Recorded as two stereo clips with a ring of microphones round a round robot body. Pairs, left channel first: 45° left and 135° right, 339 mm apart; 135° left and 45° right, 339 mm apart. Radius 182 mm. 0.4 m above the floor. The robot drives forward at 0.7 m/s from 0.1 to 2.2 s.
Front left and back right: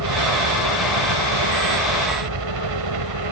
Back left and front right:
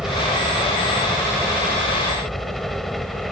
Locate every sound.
0.0 s a helicopter: 135° right